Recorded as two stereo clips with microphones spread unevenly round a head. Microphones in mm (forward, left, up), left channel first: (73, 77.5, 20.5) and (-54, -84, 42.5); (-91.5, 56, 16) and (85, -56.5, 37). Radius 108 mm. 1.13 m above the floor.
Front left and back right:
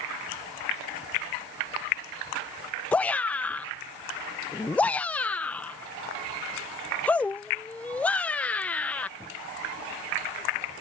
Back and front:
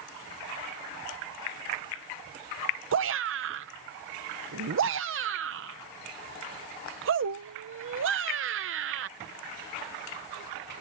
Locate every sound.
2.9 s a shout: 25° right